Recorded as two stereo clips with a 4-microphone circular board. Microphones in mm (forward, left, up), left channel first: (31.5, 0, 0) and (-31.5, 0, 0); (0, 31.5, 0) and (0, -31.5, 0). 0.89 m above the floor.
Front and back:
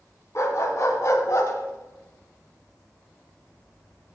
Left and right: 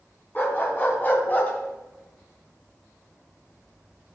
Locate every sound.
0.3 s a dog barking: 35° left, 3.5 m; by 4.1 s 5° right, 0.7 m